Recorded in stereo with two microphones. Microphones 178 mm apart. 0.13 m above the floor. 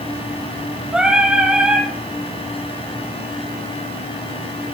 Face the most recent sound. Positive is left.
turn(degrees=-5)  # may be behind; listen again after turning